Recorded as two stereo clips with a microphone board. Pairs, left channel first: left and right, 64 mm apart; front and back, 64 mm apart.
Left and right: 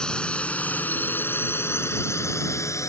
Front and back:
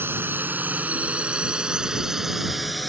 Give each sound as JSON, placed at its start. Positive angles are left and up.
{"t": 0.0, "sound": "a drone", "azimuth_deg": 160}